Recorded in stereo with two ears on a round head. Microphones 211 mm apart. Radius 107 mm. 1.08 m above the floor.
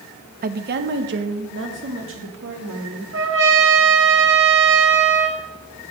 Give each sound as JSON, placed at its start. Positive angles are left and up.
{"t": 0.4, "sound": "a woman speaking", "side_deg": -35, "distance_m": 0.5}
{"t": 3.1, "sound": "a trumpet", "side_deg": -55, "distance_m": 1.3}